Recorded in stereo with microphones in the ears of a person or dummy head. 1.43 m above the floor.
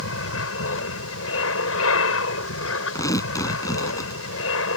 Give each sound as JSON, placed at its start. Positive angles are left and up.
{"t": 0.0, "sound": "an aircraft", "side_deg": 75}
{"t": 3.0, "sound": "tearing paper", "side_deg": 15}